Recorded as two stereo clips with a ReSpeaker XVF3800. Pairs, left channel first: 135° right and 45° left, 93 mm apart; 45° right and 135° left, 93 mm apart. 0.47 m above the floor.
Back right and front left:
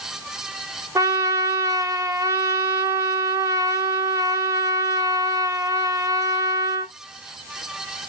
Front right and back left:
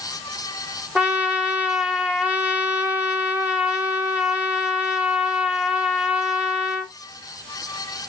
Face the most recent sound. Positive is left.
turn(degrees=70)